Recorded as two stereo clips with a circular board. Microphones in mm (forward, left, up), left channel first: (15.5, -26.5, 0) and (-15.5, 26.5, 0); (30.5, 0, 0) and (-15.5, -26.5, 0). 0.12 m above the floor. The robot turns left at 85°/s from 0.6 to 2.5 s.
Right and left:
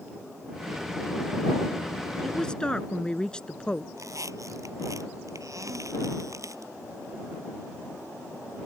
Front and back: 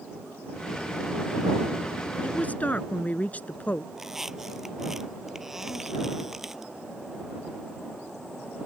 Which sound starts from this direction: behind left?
A squeak, at 3.9 s.